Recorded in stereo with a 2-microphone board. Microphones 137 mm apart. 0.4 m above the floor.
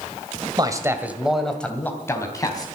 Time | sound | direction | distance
0.6 | a man speaking | 30° right (ahead or behind) | 1.8 m